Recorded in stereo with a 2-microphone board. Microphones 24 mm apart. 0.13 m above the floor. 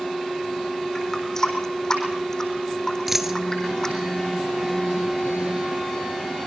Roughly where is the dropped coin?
Centre.